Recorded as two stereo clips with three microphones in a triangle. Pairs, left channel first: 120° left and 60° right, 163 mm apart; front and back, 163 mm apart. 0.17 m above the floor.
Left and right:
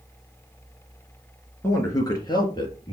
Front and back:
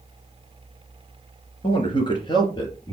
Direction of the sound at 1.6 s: 50° left.